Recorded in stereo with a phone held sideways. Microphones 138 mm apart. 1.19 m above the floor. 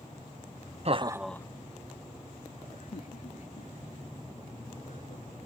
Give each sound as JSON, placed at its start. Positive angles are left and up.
{"t": 0.8, "sound": "laughter", "side_deg": -50}